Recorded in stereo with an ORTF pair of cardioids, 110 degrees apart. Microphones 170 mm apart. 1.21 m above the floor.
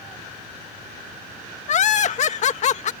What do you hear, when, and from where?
1.7 s laughter: 50° left